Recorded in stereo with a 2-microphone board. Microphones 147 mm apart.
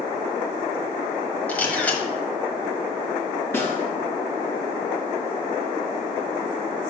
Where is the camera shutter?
10° left (ahead or behind), 1.3 m.